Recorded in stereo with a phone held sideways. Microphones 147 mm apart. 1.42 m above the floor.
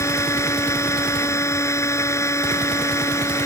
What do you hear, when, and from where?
0.0 s a machine running: 20° left (ahead or behind)